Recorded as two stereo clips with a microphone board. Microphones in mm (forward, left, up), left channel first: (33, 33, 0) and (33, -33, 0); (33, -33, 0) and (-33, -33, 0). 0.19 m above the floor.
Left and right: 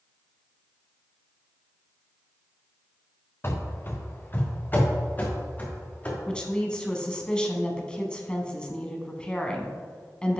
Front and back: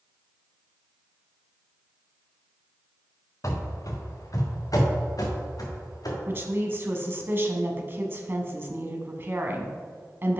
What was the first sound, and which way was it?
Running footsteps, 35° left.